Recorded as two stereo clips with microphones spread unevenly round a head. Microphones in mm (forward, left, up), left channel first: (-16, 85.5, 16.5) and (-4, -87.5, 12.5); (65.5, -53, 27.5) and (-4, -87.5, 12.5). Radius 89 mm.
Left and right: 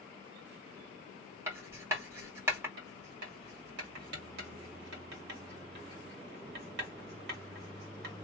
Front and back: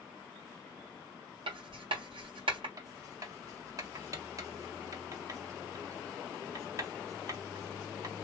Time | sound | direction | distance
1.5 | writing | 160° right | 1.7 m
2.8 | writing | 110° right | 1.9 m